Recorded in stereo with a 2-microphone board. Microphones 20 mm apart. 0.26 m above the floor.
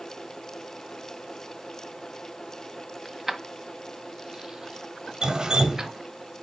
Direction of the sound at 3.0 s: Centre (ahead or behind).